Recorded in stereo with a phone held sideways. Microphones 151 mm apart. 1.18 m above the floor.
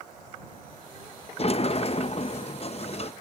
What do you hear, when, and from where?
1.4 s a sliding door: 40° left (ahead or behind)